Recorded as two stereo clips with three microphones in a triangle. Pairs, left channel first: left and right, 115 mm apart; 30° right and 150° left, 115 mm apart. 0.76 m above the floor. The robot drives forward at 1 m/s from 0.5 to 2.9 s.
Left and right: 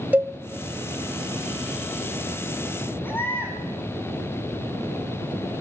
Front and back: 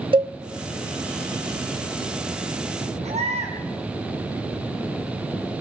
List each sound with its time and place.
0.1 s a cowbell: 165° right, 1.2 m
3.0 s a baby crying: 160° left, 4.5 m